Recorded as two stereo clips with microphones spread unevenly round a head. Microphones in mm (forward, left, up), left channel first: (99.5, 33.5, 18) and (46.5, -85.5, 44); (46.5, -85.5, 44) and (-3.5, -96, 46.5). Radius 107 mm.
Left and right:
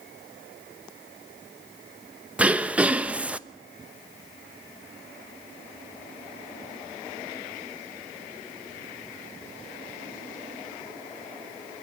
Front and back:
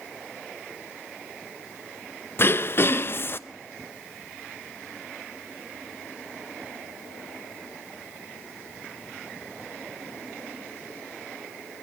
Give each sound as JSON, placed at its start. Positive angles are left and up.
{"t": 2.4, "sound": "throat clearing", "azimuth_deg": -35, "distance_m": 0.9}